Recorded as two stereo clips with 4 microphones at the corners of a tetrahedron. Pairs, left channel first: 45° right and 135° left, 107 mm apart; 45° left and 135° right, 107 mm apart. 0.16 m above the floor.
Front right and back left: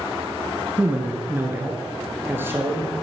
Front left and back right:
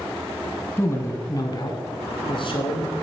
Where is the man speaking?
80° left, 1.3 m; by 2.9 s 70° left, 2.5 m.